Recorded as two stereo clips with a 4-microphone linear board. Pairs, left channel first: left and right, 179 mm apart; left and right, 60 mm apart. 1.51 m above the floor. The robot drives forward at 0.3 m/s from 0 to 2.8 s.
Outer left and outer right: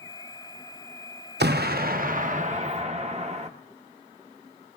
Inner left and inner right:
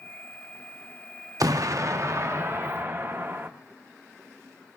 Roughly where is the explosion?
Right.